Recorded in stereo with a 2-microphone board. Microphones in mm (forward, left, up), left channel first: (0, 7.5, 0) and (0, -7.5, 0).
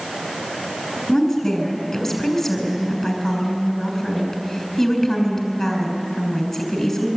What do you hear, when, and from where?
1.1 s a woman speaking: 20° left (ahead or behind), 6.5 m